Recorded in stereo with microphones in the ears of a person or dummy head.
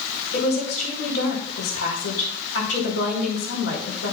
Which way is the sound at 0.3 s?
85° left.